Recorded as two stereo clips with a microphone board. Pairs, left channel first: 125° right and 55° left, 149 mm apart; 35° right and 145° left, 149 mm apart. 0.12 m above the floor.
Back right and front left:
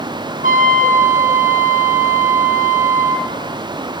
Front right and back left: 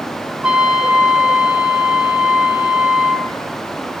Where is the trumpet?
65° left, 0.8 m.